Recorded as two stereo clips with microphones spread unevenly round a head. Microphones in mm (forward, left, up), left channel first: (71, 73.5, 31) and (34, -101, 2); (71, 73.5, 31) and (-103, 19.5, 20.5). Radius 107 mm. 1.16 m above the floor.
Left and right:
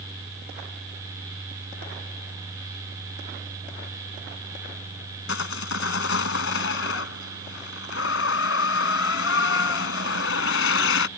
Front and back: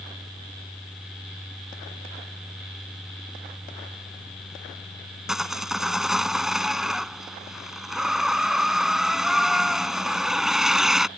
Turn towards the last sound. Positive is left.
turn(degrees=110)